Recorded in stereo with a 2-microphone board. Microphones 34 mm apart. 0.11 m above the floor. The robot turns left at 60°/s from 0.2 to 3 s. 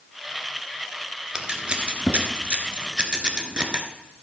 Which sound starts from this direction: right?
Scissors, at 1.4 s.